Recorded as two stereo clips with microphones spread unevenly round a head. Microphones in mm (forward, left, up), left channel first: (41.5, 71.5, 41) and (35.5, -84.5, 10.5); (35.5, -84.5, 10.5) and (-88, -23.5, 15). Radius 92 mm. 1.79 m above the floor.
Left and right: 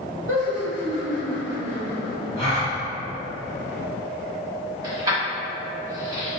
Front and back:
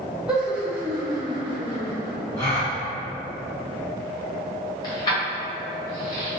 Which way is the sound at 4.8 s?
20° right.